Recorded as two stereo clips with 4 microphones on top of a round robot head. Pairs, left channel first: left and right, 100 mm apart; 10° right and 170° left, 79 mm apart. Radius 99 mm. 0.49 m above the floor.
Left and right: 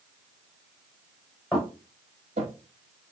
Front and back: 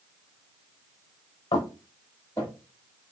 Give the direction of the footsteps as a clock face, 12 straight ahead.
12 o'clock.